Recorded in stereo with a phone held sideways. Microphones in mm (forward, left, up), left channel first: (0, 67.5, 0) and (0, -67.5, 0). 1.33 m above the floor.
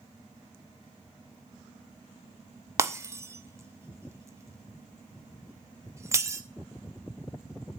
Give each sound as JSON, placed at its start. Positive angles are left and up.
{"t": 2.8, "sound": "breaking glass", "side_deg": -20, "distance_m": 0.8}